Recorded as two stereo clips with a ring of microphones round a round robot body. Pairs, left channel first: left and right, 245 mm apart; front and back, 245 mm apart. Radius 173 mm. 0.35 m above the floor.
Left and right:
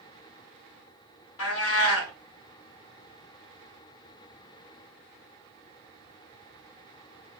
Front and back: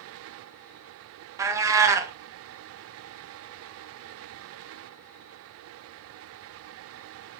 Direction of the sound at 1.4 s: 100° left.